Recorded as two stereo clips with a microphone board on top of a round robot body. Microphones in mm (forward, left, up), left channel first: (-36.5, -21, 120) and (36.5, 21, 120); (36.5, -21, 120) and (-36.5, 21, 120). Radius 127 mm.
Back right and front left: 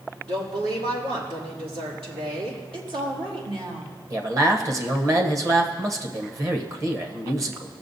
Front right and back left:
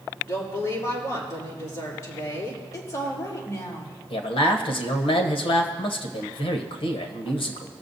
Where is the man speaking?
20° right, 1.2 m.